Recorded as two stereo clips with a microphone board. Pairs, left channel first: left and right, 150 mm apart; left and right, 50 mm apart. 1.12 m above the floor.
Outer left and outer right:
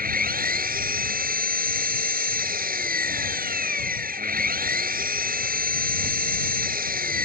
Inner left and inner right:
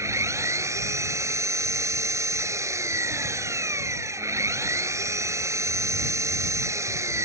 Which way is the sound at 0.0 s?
75° right (ahead or behind).